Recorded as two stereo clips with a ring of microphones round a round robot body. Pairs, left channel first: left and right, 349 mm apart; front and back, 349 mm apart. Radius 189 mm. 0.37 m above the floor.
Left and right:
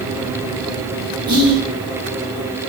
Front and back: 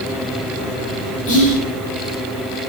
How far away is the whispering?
About 1.0 m.